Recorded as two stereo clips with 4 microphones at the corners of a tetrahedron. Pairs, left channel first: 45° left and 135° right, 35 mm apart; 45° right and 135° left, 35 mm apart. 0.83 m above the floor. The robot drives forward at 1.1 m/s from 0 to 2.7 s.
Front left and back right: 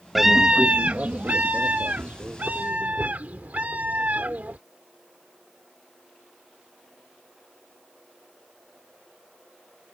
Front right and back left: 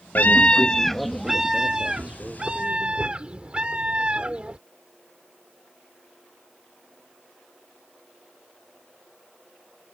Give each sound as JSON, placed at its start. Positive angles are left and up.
{"t": 0.1, "sound": "a scream", "azimuth_deg": -50}